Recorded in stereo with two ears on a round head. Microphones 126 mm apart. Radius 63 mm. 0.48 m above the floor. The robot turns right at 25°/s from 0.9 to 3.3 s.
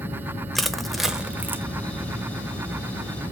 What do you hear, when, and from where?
0.6 s crushing: centre (ahead or behind), 0.8 m; by 1.6 s 15° right (ahead or behind), 0.8 m